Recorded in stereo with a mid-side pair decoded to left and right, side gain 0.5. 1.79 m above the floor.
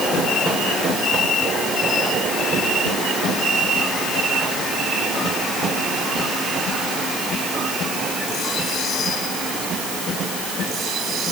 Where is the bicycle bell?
I don't hear a bicycle bell.